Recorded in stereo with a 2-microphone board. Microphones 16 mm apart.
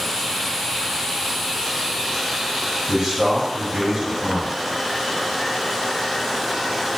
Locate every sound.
2.9 s a man speaking: 55° right (ahead or behind), 1.9 m